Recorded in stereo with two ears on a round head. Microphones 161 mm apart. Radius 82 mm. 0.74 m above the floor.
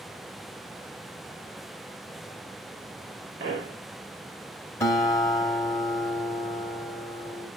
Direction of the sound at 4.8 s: 20° left (ahead or behind).